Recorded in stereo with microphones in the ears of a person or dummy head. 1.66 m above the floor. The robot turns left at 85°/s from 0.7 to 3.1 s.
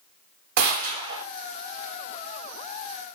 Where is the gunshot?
120° right, 0.6 m; by 1.2 s 165° right, 0.6 m.